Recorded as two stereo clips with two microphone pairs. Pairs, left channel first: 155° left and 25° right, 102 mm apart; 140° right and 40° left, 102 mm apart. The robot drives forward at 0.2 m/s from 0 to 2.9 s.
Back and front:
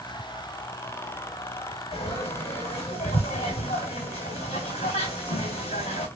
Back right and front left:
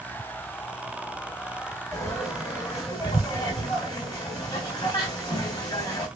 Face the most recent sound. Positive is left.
turn(degrees=165)